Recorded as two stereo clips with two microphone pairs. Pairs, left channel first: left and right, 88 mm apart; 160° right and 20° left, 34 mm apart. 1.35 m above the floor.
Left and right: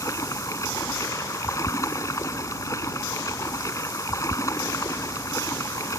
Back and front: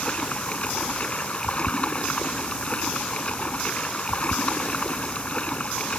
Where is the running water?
145° left.